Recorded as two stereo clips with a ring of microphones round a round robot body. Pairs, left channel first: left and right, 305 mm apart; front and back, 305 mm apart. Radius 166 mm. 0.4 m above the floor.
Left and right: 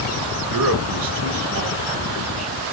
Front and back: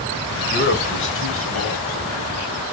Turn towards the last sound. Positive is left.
turn(degrees=-15)